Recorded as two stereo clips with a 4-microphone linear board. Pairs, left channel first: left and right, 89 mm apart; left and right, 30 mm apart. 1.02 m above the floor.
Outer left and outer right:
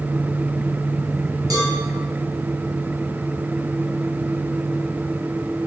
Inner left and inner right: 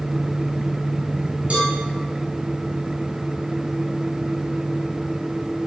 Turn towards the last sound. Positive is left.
turn(degrees=-45)  # may be behind; listen again after turning